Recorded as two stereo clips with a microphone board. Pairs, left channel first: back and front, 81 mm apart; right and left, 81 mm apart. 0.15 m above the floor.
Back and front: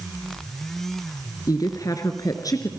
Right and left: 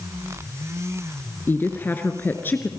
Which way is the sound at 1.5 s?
150° right.